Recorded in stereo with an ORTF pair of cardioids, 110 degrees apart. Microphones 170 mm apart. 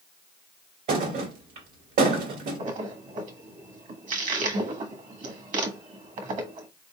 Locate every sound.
0.9 s a thud: 65° right, 2 m
2.6 s a splash: 50° right, 1.4 m